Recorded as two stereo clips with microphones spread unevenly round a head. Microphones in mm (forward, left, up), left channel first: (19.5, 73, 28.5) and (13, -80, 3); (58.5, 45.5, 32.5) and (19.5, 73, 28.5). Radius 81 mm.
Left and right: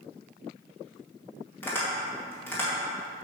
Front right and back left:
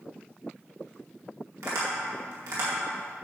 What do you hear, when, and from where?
1.6 s tapping: 165° left, 2 m